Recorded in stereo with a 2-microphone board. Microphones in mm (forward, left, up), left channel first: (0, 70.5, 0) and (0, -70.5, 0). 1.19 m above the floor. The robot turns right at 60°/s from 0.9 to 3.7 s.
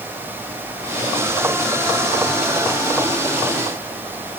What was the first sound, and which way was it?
Only background noise.